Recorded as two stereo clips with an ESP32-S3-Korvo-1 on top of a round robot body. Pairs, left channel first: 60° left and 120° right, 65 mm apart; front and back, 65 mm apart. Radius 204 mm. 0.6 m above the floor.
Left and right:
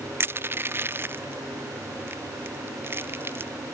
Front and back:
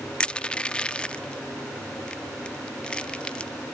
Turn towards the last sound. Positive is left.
turn(degrees=-75)